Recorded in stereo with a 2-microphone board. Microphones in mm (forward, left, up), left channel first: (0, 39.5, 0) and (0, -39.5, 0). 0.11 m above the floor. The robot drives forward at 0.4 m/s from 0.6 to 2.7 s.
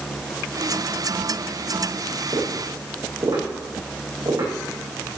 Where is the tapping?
70° right (ahead or behind), 6 m.